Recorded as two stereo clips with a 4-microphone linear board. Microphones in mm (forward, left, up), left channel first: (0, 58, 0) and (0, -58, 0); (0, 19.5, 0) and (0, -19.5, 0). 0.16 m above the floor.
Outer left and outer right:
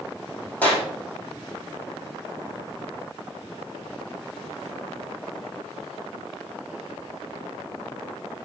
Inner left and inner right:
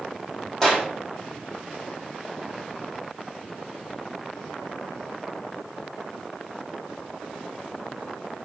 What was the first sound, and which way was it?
A clap, 15° left (ahead or behind).